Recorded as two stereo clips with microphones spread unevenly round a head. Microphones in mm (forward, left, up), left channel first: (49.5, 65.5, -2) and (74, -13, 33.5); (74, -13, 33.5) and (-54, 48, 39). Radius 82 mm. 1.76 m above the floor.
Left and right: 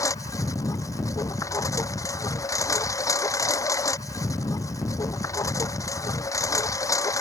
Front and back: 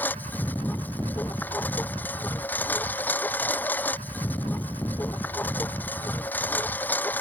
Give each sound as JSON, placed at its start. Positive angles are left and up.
{"t": 0.0, "sound": "a lawn mower", "azimuth_deg": 55}